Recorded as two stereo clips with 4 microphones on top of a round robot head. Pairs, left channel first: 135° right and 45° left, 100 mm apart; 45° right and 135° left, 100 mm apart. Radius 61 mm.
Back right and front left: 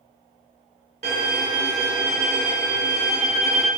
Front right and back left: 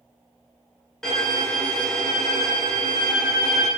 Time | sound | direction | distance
1.0 | a violin | 35° left | 1.9 m